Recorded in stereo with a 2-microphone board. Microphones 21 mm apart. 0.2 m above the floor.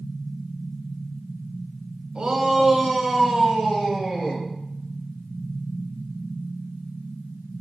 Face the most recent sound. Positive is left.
turn(degrees=0)  # may be behind; listen again after turning